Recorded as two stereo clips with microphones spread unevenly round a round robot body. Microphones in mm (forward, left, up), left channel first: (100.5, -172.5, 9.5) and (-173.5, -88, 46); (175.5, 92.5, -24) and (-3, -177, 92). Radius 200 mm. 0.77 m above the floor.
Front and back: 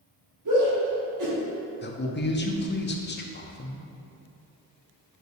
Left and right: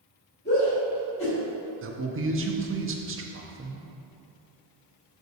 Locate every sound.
0.5 s a shout: 125° left, 2.5 m
1.8 s a man speaking: 60° right, 1.1 m